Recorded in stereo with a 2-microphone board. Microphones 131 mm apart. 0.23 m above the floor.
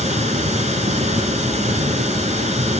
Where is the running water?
65° right (ahead or behind), 1.2 m.